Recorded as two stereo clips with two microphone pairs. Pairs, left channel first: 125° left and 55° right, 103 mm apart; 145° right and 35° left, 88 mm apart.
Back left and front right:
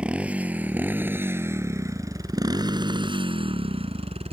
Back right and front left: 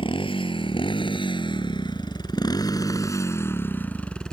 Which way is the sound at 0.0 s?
135° right.